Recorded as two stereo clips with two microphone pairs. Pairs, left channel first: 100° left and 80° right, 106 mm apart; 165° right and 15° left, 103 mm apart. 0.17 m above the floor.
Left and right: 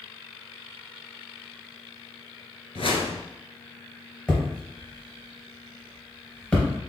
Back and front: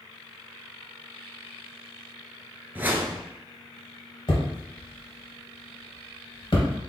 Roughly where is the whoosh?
Left.